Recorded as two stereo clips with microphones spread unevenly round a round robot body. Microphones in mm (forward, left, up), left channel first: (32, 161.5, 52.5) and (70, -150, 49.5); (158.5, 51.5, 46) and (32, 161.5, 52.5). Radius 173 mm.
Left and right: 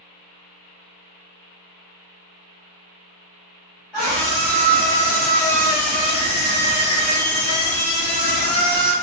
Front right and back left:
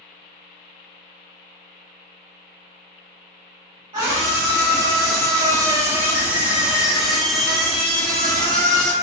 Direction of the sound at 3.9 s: 170° right.